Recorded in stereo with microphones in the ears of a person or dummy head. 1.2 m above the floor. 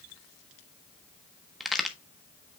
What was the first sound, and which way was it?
A crack, 5° right (ahead or behind).